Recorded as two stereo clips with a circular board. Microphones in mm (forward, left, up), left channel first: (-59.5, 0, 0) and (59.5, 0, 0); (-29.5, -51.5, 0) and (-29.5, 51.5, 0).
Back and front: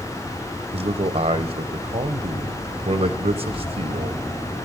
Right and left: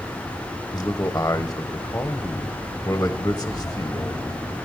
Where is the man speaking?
25° right, 0.8 m.